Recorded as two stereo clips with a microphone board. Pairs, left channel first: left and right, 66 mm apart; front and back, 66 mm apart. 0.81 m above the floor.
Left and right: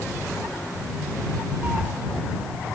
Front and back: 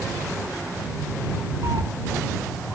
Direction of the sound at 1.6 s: 155° right.